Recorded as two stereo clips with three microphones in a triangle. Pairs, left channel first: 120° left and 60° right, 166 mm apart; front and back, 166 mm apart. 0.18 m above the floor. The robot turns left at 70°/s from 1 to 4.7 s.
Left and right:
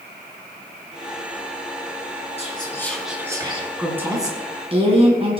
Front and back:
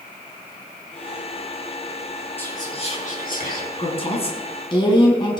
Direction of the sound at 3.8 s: 25° left.